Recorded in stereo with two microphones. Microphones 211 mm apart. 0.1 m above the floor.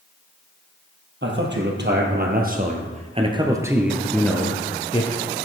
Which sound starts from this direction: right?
A man speaking, at 1.2 s.